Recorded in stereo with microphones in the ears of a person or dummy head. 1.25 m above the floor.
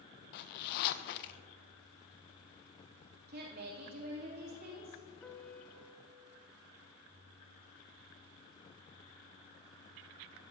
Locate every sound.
0.3 s a zipper: 60° left (ahead or behind), 0.5 m
3.3 s a woman speaking: 50° right (ahead or behind), 2.5 m
5.2 s a piano: 5° left (ahead or behind), 0.6 m